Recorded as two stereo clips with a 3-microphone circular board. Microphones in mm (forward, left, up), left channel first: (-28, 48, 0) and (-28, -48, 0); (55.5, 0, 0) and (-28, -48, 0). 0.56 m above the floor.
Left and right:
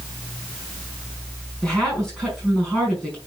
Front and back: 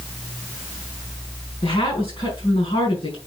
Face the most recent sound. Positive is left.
turn(degrees=5)